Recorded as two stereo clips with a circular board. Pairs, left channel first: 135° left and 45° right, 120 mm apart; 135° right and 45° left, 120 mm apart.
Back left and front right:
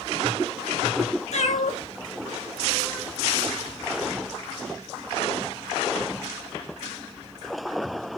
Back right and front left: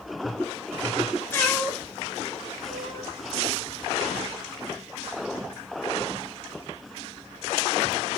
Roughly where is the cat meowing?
Behind left.